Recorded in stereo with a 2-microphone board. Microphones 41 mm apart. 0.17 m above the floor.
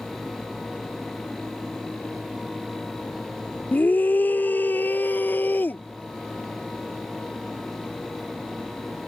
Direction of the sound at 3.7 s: 45° left (ahead or behind).